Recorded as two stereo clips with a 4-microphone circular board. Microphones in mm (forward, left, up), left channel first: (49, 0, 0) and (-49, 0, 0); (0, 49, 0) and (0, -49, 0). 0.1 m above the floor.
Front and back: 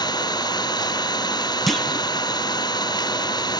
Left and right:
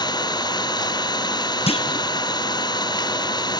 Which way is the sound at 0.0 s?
45° left.